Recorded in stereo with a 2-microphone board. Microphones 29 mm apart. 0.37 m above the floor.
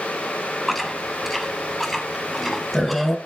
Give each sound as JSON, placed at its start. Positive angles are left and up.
{"t": 0.7, "sound": "chewing", "side_deg": 0, "distance_m": 1.0}